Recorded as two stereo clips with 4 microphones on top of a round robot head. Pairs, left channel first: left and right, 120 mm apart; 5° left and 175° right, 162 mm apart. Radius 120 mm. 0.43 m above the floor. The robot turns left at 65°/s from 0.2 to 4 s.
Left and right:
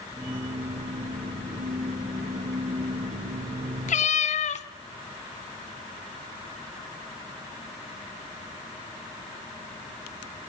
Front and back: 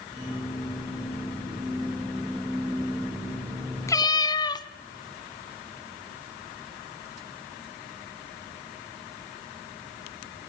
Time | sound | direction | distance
3.9 | a cat meowing | 75° left | 1.1 m